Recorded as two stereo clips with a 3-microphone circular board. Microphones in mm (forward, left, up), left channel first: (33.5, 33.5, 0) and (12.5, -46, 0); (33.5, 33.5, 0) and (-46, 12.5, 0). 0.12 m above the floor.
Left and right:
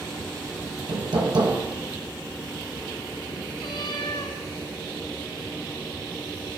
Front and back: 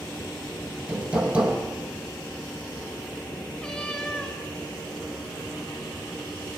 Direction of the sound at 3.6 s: 95° left.